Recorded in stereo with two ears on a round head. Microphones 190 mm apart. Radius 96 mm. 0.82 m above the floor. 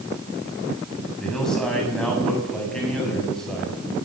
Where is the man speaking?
5° left (ahead or behind), 7 m.